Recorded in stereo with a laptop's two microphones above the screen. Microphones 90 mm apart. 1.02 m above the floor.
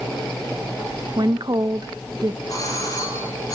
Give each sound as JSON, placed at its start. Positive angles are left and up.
{"t": 1.2, "sound": "a woman speaking", "side_deg": -50, "distance_m": 0.8}
{"t": 2.5, "sound": "a doorbell", "side_deg": 40, "distance_m": 8.0}